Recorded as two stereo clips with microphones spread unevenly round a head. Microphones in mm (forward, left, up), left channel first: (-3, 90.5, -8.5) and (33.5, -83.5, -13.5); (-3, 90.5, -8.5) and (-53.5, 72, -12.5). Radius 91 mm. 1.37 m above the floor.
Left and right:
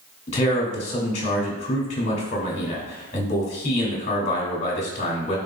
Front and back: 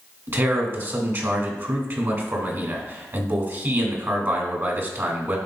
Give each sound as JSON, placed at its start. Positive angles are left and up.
{"t": 0.3, "sound": "a man speaking", "azimuth_deg": 160, "distance_m": 2.5}